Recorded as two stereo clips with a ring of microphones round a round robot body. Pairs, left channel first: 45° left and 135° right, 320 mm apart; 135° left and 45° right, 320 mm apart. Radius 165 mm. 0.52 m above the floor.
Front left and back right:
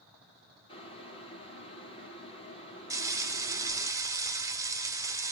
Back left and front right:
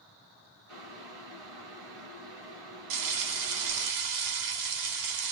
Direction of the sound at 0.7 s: 30° right.